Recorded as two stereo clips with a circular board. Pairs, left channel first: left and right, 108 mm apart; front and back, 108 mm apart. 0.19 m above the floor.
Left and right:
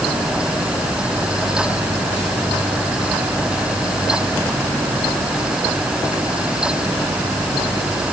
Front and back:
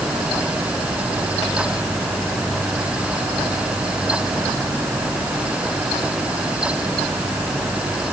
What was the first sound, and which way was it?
Only background noise.